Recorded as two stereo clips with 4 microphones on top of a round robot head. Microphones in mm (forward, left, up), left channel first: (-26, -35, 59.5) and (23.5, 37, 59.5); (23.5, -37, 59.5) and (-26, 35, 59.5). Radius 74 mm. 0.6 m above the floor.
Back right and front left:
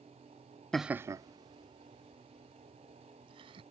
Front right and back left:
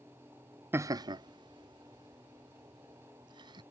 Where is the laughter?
160° left; by 3.6 s 85° left.